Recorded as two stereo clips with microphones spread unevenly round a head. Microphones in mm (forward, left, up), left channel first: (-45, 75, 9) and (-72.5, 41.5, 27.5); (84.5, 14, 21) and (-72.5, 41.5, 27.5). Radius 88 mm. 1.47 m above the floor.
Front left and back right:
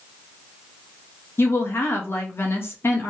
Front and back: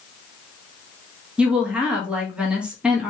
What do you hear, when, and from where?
1.4 s a woman speaking: 85° left, 1.7 m